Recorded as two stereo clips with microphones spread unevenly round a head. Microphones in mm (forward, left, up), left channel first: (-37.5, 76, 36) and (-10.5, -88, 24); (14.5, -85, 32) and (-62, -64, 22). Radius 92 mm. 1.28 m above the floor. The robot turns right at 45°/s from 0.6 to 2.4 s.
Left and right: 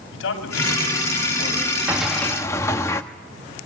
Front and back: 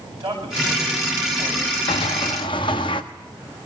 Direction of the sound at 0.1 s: 105° left.